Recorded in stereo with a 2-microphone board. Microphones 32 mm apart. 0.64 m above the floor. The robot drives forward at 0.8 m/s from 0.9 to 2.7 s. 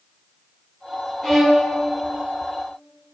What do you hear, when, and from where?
1.2 s a violin: 15° left (ahead or behind), 3 m; by 1.7 s 20° left (ahead or behind), 2.5 m